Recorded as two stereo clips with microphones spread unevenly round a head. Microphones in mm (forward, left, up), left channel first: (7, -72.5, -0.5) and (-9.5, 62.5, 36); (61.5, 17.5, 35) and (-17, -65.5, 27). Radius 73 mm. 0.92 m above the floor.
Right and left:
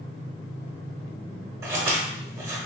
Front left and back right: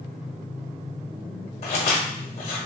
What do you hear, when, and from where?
1.6 s scissors: 50° left, 0.9 m